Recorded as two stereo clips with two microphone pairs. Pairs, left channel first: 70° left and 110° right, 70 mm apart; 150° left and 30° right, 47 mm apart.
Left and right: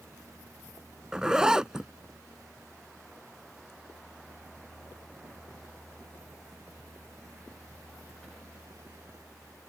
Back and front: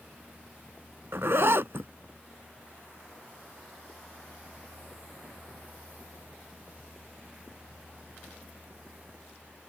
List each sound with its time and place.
1.1 s a zipper: 35° right